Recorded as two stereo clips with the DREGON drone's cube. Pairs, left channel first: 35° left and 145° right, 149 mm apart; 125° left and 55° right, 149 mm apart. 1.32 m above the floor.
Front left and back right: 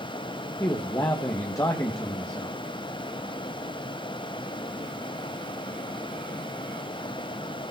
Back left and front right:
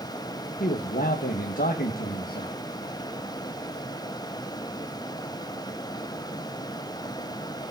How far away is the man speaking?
About 1.7 m.